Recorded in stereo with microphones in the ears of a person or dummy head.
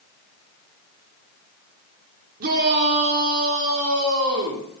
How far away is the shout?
About 3 m.